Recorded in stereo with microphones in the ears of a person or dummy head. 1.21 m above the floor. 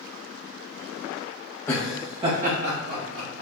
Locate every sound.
1.7 s laughter: 20° left (ahead or behind), 0.7 m; by 3.4 s 70° right (ahead or behind), 1.7 m